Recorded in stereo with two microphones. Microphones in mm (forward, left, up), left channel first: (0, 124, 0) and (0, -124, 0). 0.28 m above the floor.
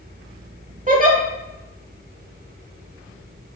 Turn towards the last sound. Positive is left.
turn(degrees=-30)  # may be behind; listen again after turning